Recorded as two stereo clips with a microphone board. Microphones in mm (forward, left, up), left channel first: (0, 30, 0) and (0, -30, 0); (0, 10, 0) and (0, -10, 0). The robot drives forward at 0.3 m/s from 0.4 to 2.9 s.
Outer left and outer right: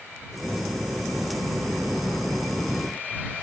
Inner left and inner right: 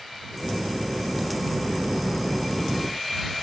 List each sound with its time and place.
Only background noise.